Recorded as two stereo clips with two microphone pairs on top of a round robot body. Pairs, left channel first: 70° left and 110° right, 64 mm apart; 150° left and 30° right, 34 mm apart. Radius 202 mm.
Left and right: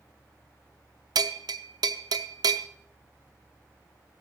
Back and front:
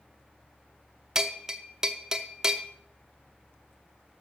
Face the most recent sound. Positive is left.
turn(degrees=-105)